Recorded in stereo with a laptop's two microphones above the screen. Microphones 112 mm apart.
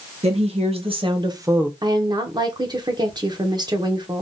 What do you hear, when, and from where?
0.2 s a woman speaking: 70° right (ahead or behind), 1.3 m; by 1.7 s 10° right (ahead or behind), 0.5 m
1.8 s a woman speaking: 40° right (ahead or behind), 0.7 m